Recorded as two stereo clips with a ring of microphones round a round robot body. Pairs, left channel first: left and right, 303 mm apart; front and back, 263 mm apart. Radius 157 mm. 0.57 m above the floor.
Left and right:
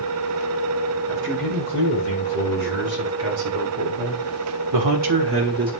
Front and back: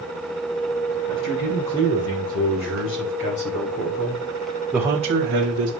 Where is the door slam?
I don't hear a door slam.